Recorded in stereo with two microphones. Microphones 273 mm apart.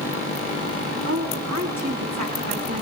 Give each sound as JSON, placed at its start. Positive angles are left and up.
{"t": 1.1, "sound": "a woman speaking", "side_deg": -85, "distance_m": 8.0}